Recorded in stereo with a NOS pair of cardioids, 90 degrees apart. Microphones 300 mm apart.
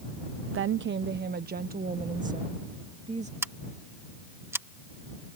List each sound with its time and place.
0.5 s a woman speaking: 50° right; by 3.3 s 25° right
3.4 s scissors: 10° right